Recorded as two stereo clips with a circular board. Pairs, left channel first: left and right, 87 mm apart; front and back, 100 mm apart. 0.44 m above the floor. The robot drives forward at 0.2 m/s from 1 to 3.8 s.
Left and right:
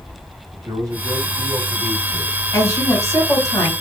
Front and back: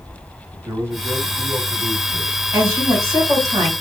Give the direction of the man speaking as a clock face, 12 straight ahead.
4 o'clock.